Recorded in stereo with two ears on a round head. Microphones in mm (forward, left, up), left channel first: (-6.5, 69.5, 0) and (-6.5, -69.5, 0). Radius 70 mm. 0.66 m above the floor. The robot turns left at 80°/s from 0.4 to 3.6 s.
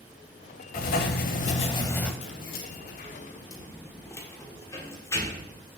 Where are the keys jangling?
45° left (ahead or behind), 1.3 m; by 5.6 s 20° left (ahead or behind), 1.3 m.